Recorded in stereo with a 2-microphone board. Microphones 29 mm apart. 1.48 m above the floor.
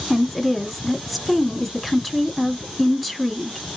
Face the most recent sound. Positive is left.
turn(degrees=15)  # may be behind; listen again after turning